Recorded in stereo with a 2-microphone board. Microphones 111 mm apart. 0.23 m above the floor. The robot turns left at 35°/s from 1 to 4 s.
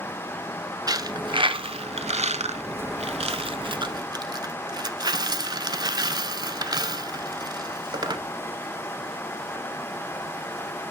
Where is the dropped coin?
35° right (ahead or behind), 0.6 m; by 8.2 s 40° right (ahead or behind), 0.6 m.